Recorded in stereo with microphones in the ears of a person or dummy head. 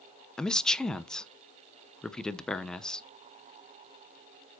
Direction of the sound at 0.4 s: 5° left (ahead or behind).